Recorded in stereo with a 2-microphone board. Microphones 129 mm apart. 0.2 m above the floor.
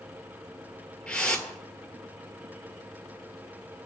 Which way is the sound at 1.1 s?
10° left (ahead or behind).